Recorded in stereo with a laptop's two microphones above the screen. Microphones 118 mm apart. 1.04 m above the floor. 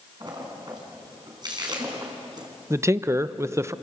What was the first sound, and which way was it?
A splash, 40° right (ahead or behind).